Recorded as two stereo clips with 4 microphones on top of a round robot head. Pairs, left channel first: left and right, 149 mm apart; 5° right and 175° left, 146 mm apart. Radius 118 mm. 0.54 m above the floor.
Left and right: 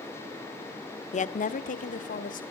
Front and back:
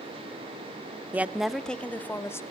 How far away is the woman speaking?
About 1.3 m.